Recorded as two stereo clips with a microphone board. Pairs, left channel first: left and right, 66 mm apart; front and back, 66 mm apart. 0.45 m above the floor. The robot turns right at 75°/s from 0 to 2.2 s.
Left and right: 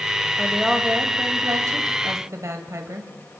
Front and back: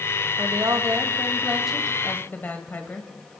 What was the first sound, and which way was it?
A woman speaking, 165° left.